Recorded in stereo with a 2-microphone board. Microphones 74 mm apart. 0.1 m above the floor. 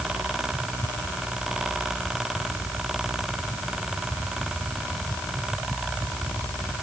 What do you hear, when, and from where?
Only background noise.